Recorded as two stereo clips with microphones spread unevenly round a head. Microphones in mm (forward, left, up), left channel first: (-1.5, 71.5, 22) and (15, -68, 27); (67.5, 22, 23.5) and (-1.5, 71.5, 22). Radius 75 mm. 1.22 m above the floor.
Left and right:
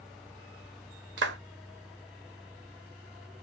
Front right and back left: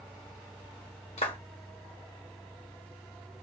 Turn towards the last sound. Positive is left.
turn(degrees=-75)